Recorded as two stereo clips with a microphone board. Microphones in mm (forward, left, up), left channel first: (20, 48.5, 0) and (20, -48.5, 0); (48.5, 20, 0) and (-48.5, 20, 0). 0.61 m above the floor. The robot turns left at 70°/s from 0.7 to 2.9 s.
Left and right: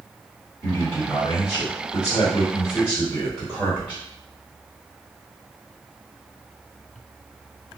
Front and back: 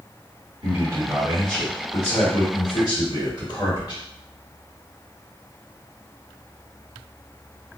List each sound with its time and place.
0.6 s a man speaking: 140° left, 1.8 m; by 4.0 s 10° right, 1.8 m